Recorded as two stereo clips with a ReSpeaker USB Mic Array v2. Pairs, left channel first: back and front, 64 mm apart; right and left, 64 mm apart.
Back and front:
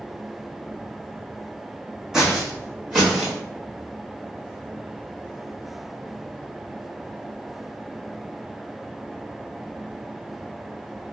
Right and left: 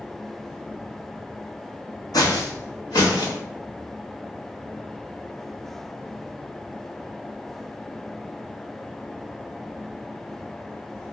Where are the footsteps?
80° right, 0.8 m; by 3.4 s 75° right, 1.6 m.